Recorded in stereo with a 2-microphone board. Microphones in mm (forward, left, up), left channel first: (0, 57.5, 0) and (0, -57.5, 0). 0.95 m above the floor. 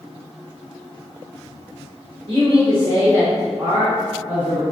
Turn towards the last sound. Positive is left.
turn(degrees=-15)  # may be behind; listen again after turning